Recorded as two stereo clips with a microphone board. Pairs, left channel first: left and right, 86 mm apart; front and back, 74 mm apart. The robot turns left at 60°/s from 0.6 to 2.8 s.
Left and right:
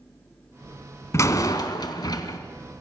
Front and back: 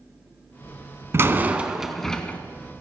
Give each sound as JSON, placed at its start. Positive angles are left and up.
{"t": 1.1, "sound": "a door slam", "azimuth_deg": 135, "distance_m": 1.1}